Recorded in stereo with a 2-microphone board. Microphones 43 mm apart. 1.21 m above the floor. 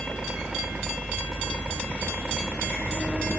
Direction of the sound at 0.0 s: 25° right (ahead or behind).